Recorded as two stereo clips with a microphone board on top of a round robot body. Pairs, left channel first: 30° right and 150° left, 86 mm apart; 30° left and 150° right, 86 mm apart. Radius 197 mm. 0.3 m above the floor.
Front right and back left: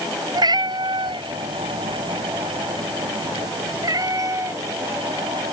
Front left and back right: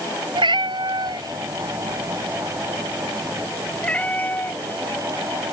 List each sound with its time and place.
0.3 s a cat meowing: 175° right; by 5.5 s 85° left